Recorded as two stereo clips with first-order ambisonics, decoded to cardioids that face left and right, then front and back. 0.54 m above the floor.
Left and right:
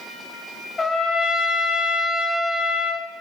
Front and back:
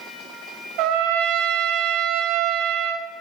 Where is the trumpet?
160° left, 1.4 m.